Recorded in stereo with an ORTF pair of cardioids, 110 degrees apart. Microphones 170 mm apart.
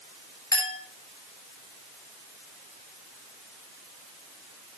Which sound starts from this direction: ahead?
A clink, at 0.5 s.